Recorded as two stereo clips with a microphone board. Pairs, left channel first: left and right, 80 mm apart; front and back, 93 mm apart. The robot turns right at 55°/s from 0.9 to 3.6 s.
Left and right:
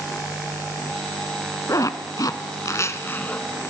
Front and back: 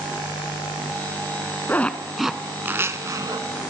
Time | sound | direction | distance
1.7 | a zipper | 65° left | 0.9 m